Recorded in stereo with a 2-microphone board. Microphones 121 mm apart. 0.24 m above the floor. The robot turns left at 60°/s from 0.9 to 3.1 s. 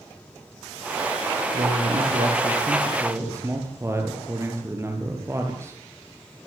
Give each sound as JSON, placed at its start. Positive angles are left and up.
{"t": 1.5, "sound": "a man speaking", "azimuth_deg": -65, "distance_m": 6.0}